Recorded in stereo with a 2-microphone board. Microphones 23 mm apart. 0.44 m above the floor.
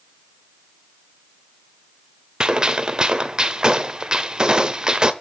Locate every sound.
2.4 s a gunshot: 35° right (ahead or behind), 1.0 m